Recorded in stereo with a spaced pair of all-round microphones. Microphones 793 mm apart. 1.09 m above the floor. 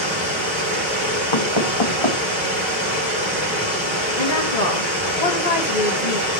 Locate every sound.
0.0 s running water: 15° right (ahead or behind), 6 m
1.3 s knocking: 35° left (ahead or behind), 1.0 m
4.2 s a woman speaking: 50° left (ahead or behind), 1.5 m